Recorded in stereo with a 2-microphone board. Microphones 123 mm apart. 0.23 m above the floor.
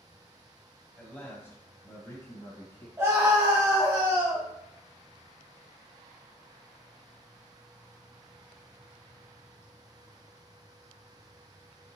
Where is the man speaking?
10° left (ahead or behind), 1.5 m; by 2.9 s 35° left (ahead or behind), 1.6 m.